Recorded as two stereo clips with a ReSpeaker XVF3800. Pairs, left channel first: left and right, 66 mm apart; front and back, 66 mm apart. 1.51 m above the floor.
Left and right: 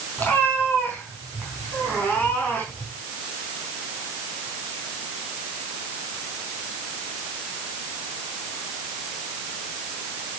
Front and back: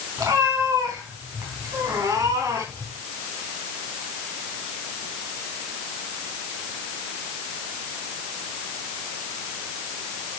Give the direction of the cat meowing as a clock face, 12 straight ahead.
7 o'clock.